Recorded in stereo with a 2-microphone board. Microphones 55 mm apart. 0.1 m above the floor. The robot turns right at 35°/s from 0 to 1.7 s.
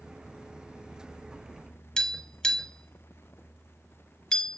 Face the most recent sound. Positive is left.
turn(degrees=15)  # may be behind; listen again after turning